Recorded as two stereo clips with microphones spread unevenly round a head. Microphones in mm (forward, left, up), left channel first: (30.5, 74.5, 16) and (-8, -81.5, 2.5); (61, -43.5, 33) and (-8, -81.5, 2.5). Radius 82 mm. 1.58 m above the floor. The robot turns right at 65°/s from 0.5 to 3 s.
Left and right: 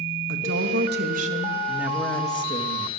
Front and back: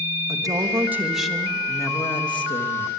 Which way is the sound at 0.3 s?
110° right.